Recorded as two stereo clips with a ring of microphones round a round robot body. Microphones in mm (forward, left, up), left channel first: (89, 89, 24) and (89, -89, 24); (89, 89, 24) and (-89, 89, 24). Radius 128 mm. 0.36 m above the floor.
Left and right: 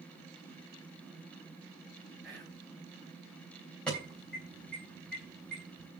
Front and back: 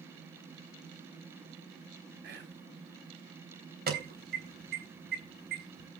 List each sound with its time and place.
2.2 s whispering: straight behind, 2.5 m
3.9 s an alarm: 175° left, 3.5 m